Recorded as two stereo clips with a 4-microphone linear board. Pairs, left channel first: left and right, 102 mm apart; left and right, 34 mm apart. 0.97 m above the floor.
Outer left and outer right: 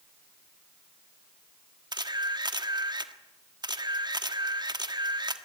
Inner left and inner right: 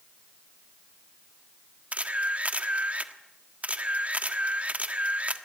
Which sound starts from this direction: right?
A camera shutter, at 1.9 s.